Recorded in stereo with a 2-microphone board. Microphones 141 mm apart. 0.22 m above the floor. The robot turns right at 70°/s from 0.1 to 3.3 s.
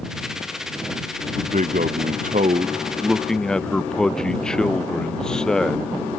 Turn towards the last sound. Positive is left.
turn(degrees=5)